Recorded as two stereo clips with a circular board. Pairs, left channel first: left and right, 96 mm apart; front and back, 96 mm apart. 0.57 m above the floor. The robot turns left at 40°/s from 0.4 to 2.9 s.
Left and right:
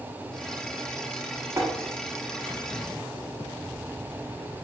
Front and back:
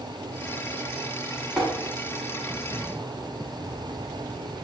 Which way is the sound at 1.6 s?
90° right.